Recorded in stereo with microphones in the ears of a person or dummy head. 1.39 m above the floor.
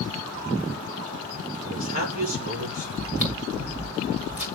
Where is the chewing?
10° right (ahead or behind), 2 m.